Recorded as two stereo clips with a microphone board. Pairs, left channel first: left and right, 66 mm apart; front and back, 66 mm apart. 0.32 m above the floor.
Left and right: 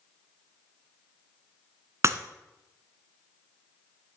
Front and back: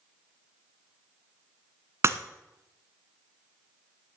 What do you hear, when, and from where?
2.0 s breaking glass: 135° right, 0.9 m